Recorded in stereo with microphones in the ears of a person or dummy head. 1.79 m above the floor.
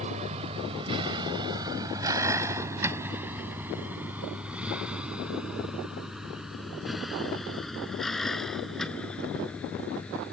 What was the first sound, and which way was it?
A vehicle, 40° right (ahead or behind).